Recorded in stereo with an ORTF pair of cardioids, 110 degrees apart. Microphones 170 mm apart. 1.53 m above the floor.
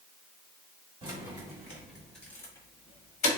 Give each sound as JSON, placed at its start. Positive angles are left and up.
{"t": 1.0, "sound": "keys jangling", "azimuth_deg": -25, "distance_m": 1.5}